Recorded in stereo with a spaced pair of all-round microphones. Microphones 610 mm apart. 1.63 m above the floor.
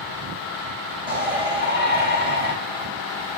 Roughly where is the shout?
Right.